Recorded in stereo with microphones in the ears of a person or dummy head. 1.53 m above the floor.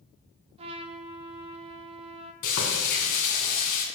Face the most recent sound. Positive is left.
turn(degrees=50)  # may be behind; listen again after turning